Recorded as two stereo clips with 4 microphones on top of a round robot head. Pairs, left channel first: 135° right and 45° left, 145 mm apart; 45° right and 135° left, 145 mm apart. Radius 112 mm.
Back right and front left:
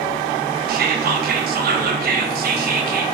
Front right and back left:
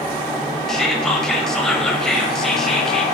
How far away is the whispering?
About 0.6 m.